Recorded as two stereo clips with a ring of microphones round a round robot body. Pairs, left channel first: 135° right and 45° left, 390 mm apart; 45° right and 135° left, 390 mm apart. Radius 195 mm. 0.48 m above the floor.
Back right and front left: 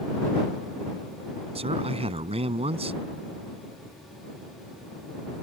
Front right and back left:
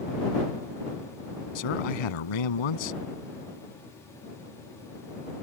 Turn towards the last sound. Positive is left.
turn(degrees=-30)